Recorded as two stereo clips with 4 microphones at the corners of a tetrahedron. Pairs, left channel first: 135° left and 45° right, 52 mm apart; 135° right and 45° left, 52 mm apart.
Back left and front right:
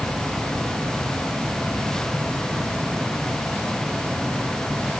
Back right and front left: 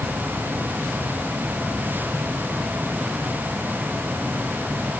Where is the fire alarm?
I don't hear a fire alarm.